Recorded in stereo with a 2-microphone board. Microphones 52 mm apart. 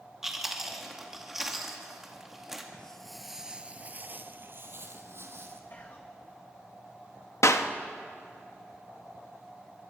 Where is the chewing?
10° right (ahead or behind), 2 m.